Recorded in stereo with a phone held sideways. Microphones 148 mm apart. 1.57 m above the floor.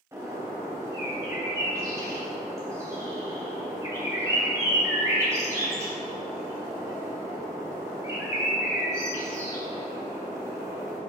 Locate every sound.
0.1 s a bird: 20° right (ahead or behind), 3.5 m